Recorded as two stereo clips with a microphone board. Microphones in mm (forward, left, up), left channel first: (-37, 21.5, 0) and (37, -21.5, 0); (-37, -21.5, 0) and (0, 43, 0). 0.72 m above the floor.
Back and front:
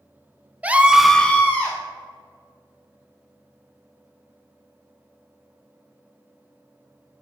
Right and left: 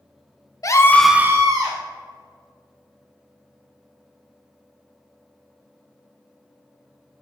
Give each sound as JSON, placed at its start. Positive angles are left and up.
{"t": 0.6, "sound": "a scream", "azimuth_deg": -100, "distance_m": 0.8}